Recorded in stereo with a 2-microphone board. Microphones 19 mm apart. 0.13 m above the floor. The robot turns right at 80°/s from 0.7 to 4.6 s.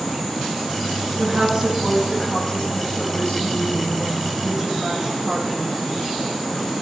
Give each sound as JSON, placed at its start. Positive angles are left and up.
{"t": 1.2, "sound": "a woman speaking", "azimuth_deg": -70, "distance_m": 5.5}